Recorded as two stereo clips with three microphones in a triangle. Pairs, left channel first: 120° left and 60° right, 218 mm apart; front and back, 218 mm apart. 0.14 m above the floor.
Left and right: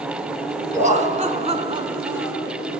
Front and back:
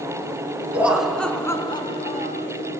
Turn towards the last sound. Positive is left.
turn(degrees=20)